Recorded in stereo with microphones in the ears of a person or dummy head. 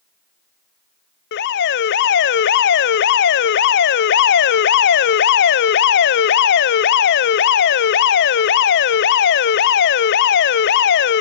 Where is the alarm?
55° left (ahead or behind), 0.6 m.